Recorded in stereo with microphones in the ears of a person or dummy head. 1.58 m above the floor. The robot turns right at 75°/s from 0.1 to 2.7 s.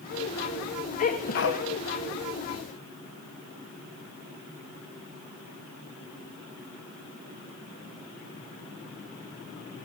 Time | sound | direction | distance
1.0 | a sneeze | 55° left | 1.7 m